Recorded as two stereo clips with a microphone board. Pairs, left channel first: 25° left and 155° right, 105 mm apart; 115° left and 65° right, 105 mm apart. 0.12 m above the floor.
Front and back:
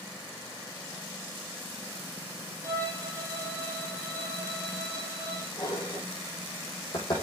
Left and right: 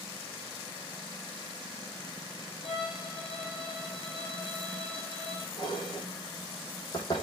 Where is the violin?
140° left, 3 m.